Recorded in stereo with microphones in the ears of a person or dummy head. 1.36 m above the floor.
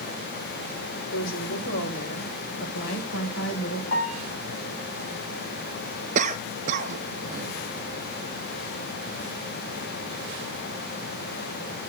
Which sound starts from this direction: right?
A cough, at 6.2 s.